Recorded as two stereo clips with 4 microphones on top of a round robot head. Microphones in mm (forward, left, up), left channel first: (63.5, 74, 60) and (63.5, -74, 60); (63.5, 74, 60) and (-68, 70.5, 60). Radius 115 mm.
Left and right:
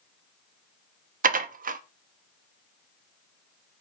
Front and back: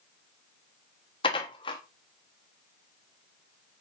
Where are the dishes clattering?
65° right, 1.0 m.